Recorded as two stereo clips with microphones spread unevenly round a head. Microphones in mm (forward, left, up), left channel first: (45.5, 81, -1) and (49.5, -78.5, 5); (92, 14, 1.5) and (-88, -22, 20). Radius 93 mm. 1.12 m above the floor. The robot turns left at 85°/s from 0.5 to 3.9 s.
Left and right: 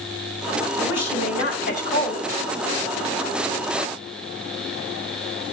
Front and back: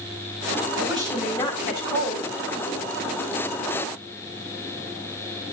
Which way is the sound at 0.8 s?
140° left.